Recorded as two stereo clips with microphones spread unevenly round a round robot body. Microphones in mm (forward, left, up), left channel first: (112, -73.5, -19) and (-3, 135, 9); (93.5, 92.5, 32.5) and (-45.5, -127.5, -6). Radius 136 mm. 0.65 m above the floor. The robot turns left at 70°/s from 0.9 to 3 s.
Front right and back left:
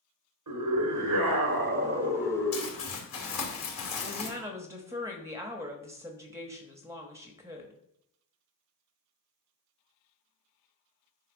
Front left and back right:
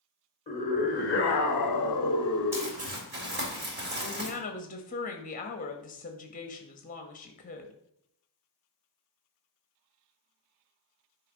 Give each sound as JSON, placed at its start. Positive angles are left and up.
{"t": 0.5, "sound": "a scream", "azimuth_deg": 125, "distance_m": 1.7}
{"t": 2.5, "sound": "crumpling", "azimuth_deg": -45, "distance_m": 3.0}
{"t": 4.0, "sound": "a woman speaking", "azimuth_deg": 45, "distance_m": 1.1}